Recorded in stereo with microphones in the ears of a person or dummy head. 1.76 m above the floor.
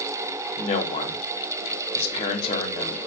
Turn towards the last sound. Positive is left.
turn(degrees=35)  # may be behind; listen again after turning